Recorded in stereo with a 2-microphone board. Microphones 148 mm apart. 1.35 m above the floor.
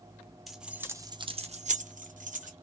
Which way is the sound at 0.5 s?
Centre (ahead or behind).